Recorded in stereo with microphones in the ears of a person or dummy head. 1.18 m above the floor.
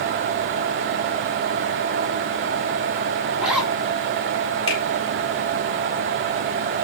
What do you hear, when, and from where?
3.4 s a zipper: 5° right (ahead or behind), 6 m
4.7 s a finger snap: 30° left (ahead or behind), 4 m